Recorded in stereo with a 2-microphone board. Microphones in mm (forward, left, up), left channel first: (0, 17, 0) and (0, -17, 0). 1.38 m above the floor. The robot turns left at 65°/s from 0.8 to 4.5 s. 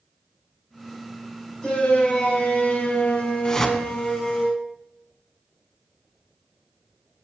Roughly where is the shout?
Behind.